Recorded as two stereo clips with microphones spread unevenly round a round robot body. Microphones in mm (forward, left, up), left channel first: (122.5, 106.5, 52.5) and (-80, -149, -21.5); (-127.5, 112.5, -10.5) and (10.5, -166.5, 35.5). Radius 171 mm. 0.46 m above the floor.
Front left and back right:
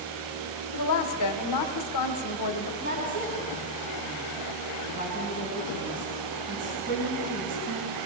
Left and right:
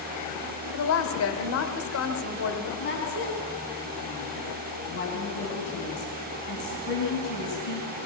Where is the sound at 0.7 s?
90° left, 1.6 m.